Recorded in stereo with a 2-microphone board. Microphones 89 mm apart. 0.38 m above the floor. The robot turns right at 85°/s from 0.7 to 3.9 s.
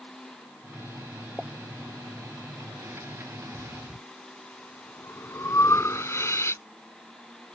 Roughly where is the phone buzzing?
No phone buzzing in this recording.